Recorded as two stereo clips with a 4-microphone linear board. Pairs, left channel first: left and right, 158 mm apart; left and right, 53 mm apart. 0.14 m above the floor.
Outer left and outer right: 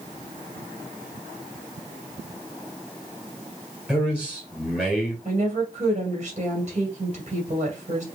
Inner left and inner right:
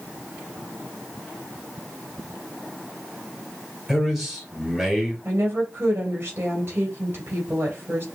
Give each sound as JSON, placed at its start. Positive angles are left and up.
{"t": 3.9, "sound": "a man speaking", "side_deg": -5, "distance_m": 2.5}
{"t": 5.2, "sound": "a woman speaking", "side_deg": -45, "distance_m": 3.0}